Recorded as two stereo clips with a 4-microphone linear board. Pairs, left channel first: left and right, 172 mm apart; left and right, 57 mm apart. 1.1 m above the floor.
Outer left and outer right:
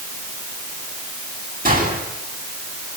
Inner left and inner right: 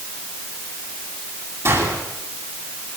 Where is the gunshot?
55° right (ahead or behind), 10 m.